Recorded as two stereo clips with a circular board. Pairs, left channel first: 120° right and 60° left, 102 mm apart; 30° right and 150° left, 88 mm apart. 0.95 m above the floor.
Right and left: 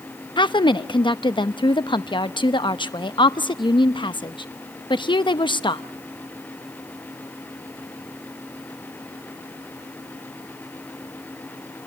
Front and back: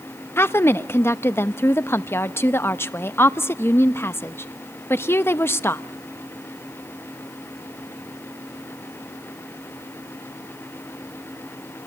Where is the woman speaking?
90° right, 0.9 m.